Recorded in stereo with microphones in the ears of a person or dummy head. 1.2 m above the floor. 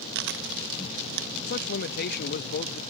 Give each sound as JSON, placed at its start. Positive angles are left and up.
{"t": 0.1, "sound": "chewing", "side_deg": -60}
{"t": 1.5, "sound": "a man speaking", "side_deg": 55}